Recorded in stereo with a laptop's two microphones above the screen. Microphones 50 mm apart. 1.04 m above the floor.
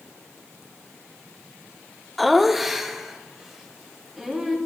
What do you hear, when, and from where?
2.2 s laughter: centre (ahead or behind), 0.5 m; by 4.6 s 10° right (ahead or behind), 2.5 m